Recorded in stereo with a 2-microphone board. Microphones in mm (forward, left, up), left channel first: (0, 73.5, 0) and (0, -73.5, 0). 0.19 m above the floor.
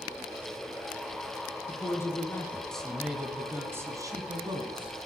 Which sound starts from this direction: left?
A man speaking, at 1.7 s.